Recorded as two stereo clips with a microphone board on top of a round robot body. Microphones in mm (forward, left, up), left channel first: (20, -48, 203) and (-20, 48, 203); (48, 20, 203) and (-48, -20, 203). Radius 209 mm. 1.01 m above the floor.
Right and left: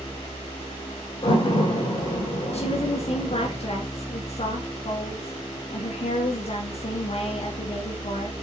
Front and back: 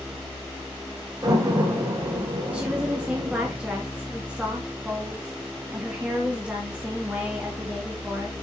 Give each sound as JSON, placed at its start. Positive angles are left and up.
{"t": 1.2, "sound": "a door slam", "azimuth_deg": -105, "distance_m": 4.5}
{"t": 2.5, "sound": "a woman speaking", "azimuth_deg": -80, "distance_m": 2.5}